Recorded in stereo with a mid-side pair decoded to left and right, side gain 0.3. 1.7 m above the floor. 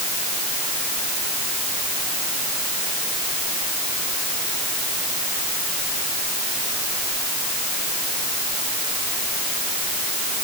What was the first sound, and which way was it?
Only background noise.